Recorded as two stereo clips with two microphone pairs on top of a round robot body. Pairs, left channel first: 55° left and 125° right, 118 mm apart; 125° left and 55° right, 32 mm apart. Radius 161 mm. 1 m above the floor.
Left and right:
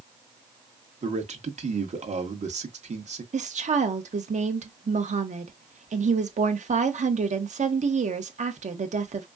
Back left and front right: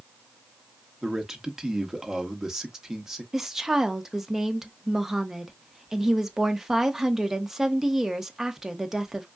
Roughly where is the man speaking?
Behind right.